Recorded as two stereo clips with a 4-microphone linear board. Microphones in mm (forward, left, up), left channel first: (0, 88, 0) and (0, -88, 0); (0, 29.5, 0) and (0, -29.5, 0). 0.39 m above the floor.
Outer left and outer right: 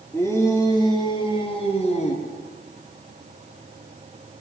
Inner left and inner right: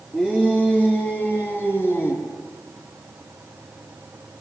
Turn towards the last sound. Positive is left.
turn(degrees=45)  # may be behind; listen again after turning